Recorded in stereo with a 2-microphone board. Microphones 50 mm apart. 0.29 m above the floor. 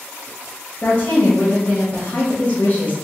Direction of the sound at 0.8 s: 30° left (ahead or behind).